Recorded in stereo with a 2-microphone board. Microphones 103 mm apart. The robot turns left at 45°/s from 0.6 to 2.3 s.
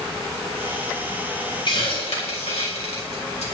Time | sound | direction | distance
1.7 | a hiss | 50° left (ahead or behind) | 4 m